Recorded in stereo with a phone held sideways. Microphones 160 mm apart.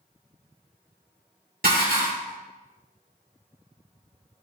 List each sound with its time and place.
1.6 s dishes clattering: 65° right (ahead or behind), 1.6 m